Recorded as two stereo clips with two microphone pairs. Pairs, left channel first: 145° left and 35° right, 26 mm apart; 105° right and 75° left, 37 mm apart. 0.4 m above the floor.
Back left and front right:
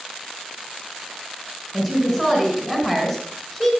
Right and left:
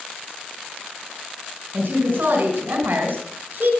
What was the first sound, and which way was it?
A woman speaking, 35° left.